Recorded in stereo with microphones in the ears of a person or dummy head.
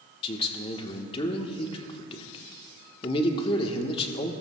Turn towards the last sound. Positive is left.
turn(degrees=25)  # may be behind; listen again after turning